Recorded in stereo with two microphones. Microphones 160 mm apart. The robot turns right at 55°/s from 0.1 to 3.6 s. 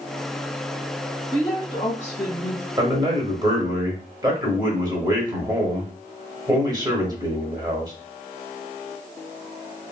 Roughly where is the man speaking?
Right.